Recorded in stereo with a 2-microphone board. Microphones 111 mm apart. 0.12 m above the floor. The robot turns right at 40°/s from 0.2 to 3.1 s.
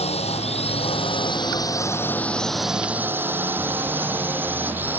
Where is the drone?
70° left (ahead or behind); by 5.0 s 20° right (ahead or behind).